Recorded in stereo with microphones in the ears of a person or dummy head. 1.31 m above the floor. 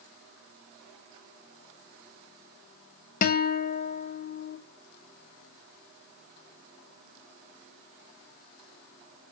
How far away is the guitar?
About 0.6 m.